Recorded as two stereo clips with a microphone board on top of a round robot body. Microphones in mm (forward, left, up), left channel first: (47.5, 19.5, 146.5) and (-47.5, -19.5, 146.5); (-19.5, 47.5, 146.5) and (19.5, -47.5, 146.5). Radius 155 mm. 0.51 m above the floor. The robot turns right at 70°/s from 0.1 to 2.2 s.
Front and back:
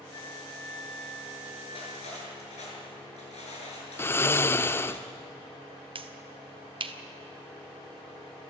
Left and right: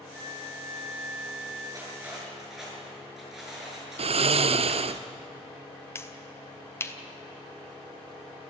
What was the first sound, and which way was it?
A flute, 45° right.